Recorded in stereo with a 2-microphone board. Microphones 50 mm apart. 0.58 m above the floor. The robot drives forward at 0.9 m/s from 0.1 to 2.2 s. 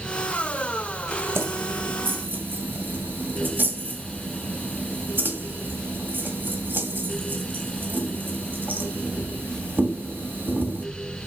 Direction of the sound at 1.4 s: 60° right (ahead or behind).